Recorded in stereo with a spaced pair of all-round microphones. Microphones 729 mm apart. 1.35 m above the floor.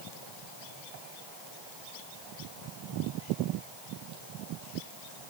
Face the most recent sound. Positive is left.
No sound to turn to.